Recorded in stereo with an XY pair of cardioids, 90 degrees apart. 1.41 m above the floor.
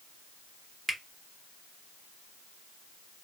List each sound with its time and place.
0.9 s a finger snap: 20° right, 0.9 m